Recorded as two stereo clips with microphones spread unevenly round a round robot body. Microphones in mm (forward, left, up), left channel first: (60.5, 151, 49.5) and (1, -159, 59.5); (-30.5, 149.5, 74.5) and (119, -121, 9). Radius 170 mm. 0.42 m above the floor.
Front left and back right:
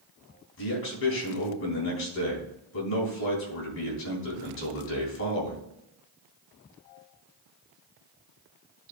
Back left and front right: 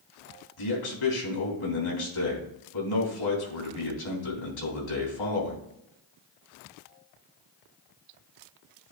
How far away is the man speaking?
About 3.5 m.